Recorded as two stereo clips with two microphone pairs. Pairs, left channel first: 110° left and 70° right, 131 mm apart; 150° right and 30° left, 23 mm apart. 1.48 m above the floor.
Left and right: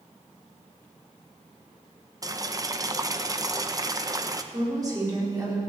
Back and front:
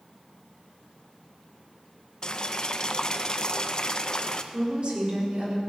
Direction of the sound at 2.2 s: 120° right.